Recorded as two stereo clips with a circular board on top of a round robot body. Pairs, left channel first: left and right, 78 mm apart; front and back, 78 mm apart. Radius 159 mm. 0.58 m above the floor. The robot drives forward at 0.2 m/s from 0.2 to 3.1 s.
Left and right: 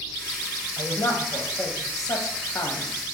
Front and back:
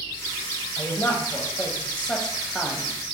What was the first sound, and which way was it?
A man speaking, 50° left.